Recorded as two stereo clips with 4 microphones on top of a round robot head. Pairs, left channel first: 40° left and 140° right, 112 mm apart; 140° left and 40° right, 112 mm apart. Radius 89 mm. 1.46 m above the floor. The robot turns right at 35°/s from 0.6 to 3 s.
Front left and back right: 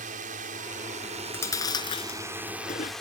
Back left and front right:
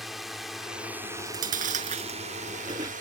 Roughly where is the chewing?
Ahead right.